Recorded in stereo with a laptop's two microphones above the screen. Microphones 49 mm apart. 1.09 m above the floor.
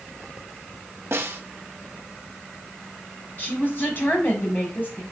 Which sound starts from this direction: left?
A woman speaking, at 3.4 s.